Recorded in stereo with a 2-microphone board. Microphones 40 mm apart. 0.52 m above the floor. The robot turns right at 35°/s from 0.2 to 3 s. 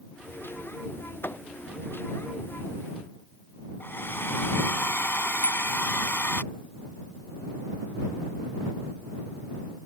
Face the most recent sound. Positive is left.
turn(degrees=35)  # may be behind; listen again after turning